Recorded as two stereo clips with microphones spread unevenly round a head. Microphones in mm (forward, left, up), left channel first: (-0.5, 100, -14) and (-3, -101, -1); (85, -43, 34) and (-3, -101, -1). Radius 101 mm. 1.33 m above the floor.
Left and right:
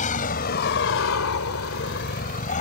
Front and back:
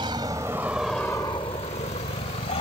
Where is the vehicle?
140° left; by 2.6 s 35° left.